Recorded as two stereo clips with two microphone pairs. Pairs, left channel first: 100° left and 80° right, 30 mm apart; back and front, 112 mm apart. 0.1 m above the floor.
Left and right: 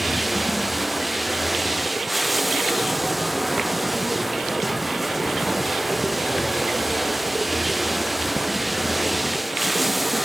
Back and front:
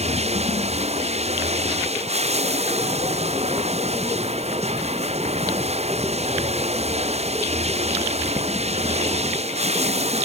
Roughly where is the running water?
Ahead.